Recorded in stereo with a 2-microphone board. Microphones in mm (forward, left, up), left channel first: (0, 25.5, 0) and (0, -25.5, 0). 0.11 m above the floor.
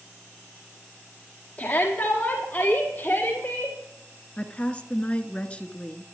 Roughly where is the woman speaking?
Left.